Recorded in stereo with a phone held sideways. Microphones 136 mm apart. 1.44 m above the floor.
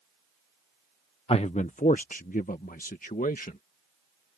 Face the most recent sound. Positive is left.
turn(degrees=85)